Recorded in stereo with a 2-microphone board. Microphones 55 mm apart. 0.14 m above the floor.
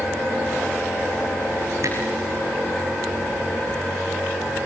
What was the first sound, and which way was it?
A camera shutter, 60° right (ahead or behind).